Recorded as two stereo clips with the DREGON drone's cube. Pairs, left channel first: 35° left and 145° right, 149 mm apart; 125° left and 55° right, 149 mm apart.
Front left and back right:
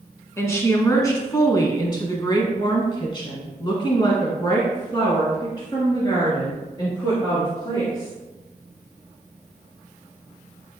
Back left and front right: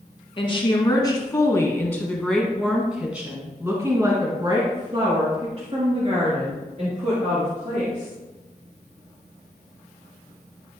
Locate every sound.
0.4 s a woman speaking: 100° left, 2 m; by 8.1 s 30° right, 3.5 m